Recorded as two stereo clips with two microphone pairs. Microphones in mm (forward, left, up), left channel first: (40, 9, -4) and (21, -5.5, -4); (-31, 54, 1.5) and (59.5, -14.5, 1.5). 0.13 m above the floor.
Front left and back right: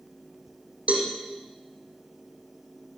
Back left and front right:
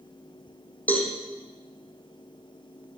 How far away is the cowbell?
About 5 m.